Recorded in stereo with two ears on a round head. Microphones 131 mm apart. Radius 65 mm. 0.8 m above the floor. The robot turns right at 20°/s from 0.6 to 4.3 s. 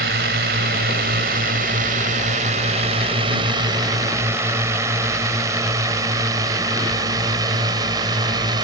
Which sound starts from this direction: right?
A drone, at 0.0 s.